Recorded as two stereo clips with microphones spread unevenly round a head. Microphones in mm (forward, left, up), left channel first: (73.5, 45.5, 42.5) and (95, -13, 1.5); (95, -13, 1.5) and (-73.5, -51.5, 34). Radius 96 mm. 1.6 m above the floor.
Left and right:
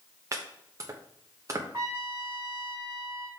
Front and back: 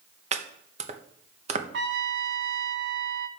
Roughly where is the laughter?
No laughter in this recording.